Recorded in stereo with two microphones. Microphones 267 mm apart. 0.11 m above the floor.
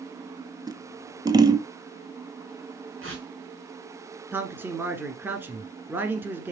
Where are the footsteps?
I don't hear footsteps.